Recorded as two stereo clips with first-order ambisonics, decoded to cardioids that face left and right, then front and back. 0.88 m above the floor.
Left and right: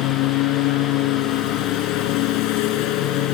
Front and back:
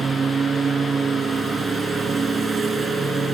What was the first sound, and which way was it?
A lawn mower, 110° left.